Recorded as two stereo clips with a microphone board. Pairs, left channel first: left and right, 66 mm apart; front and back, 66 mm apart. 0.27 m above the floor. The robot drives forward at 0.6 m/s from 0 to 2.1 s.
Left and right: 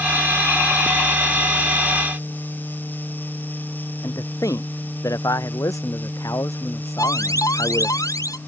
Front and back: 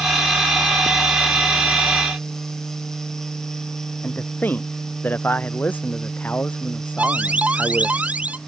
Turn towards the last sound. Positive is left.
turn(degrees=110)